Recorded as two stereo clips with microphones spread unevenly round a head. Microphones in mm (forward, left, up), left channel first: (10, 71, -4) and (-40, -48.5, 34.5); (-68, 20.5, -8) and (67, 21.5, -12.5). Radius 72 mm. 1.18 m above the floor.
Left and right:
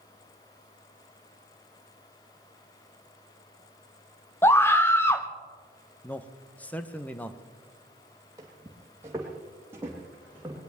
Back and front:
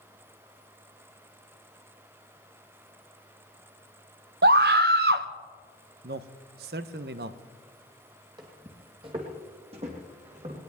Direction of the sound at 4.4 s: Straight ahead.